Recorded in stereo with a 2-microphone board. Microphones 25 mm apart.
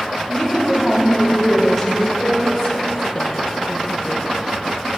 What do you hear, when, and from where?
0.3 s a woman speaking: 20° left (ahead or behind), 3.5 m; by 2.1 s centre (ahead or behind), 1.7 m
2.2 s a woman speaking: 35° left (ahead or behind), 0.9 m